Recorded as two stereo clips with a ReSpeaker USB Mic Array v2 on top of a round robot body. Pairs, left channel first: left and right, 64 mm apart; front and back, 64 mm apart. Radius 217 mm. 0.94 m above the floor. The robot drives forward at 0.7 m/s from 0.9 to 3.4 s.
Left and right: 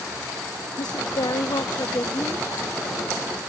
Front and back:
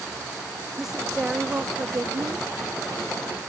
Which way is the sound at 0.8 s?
95° left.